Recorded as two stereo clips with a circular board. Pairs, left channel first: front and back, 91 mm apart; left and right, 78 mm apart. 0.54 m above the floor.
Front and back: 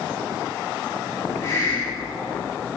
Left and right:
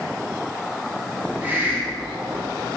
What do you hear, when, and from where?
1.2 s a hiss: 35° right, 1.6 m